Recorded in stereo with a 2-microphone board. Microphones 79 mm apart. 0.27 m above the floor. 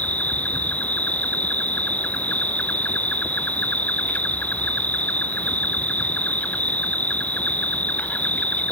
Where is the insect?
20° left (ahead or behind).